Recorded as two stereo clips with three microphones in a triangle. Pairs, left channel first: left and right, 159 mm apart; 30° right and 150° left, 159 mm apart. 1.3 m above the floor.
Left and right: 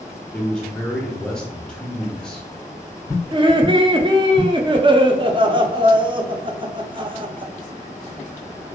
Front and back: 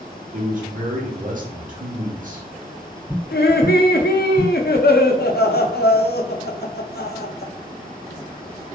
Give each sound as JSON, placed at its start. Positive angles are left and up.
{"t": 0.3, "sound": "a man speaking", "azimuth_deg": 175, "distance_m": 1.1}
{"t": 3.3, "sound": "laughter", "azimuth_deg": -30, "distance_m": 0.6}